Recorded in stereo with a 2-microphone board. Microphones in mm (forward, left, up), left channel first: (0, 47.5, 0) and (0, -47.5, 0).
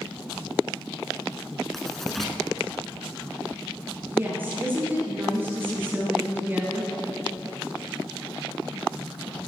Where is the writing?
5° left (ahead or behind), 1.0 m.